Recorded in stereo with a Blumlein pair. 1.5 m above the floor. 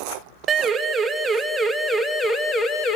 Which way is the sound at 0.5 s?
25° right.